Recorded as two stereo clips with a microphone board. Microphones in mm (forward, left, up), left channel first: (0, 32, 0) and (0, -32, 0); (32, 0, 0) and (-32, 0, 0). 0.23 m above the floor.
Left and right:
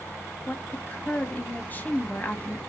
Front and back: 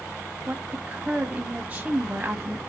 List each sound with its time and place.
0.5 s a woman speaking: 130° left, 1.2 m